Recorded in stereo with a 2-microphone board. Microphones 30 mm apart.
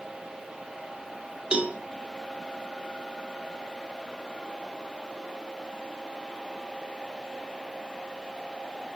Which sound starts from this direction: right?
A cowbell, at 1.5 s.